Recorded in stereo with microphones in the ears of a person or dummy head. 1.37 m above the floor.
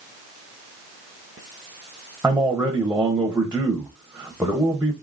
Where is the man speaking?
5° right (ahead or behind), 0.8 m.